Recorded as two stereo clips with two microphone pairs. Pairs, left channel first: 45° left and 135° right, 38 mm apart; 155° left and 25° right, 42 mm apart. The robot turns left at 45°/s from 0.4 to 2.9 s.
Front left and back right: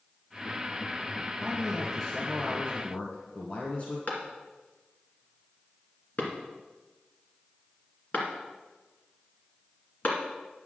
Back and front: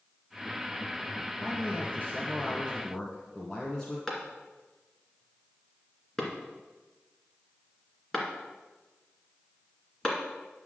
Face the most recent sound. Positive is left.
turn(degrees=80)